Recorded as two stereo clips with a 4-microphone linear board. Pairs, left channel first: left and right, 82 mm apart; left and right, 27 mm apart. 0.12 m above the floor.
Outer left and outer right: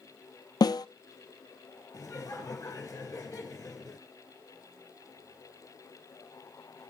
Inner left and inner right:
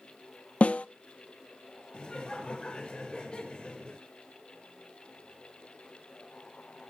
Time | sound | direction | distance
0.6 | a snare drum | 55° left (ahead or behind) | 0.6 m
1.9 | laughter | 35° left (ahead or behind) | 1.6 m